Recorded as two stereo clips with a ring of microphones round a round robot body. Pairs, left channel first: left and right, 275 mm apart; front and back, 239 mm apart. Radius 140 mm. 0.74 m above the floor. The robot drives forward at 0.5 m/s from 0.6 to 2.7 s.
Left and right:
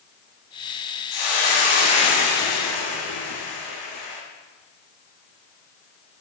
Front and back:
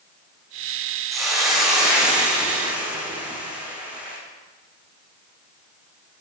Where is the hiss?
90° left, 6.5 m; by 4.2 s 95° left, 6.5 m.